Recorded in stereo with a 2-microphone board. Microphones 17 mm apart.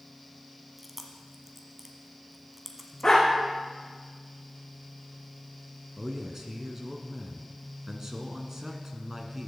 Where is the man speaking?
30° right (ahead or behind), 1.6 m.